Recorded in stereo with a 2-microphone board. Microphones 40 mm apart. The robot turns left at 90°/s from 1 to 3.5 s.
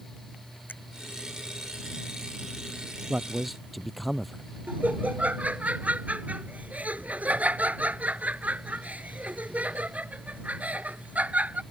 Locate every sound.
0.7 s a finger snap: 50° left (ahead or behind)
3.1 s a man speaking: 145° right; by 4.4 s straight behind
4.7 s laughter: 40° right (ahead or behind)